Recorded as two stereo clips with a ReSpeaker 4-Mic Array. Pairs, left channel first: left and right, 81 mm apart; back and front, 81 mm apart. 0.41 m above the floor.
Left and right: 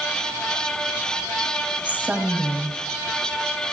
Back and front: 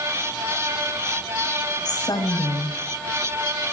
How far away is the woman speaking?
About 1.9 m.